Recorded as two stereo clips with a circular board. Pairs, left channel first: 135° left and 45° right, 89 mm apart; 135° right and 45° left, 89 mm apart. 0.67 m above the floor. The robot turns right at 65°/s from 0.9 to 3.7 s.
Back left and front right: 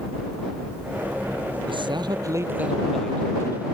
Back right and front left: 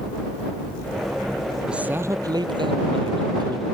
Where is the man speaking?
35° right; by 3.6 s 90° left.